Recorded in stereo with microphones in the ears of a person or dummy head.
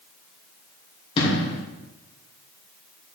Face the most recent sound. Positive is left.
turn(degrees=35)  # may be behind; listen again after turning